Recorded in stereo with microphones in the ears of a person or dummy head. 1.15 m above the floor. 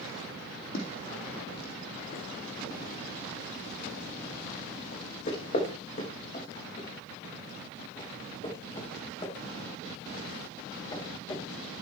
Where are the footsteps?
60° left (ahead or behind), 4 m; by 11.8 s 25° left (ahead or behind), 8.5 m.